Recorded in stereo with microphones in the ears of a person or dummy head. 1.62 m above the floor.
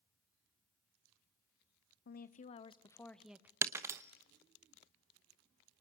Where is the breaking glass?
15° right (ahead or behind), 1.1 m.